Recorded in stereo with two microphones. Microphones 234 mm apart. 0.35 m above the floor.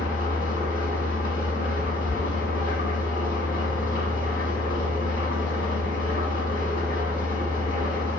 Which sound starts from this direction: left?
An engine running, at 0.0 s.